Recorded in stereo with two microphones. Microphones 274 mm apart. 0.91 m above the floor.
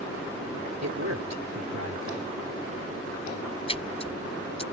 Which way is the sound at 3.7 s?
20° left (ahead or behind).